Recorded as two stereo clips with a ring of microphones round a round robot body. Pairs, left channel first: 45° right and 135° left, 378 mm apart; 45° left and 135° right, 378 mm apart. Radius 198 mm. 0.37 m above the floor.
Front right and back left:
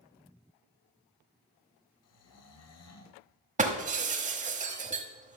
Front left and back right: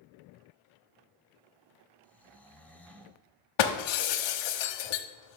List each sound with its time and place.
2.0 s snoring: 40° right, 1.4 m
3.6 s breaking glass: 65° left, 1.1 m